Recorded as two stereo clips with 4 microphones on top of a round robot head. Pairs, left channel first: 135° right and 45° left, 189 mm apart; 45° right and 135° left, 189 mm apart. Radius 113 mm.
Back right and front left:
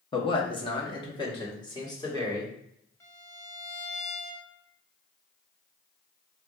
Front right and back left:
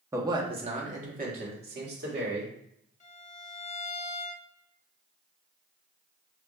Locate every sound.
0.1 s a man speaking: 165° right, 0.8 m; by 2.5 s 155° left, 1.8 m
3.0 s a violin: 65° right, 0.9 m